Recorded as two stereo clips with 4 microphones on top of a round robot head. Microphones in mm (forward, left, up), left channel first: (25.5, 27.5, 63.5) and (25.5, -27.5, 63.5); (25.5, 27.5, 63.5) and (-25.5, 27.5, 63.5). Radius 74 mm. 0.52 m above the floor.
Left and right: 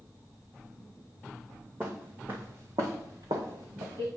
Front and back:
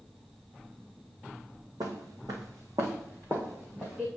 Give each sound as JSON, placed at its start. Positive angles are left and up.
{"t": 1.8, "sound": "footsteps", "azimuth_deg": -170, "distance_m": 2.0}